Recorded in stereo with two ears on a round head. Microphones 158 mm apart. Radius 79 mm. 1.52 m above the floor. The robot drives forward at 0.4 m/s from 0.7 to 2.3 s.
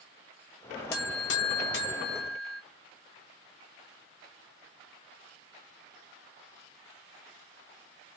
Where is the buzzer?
60° left (ahead or behind), 1.0 m.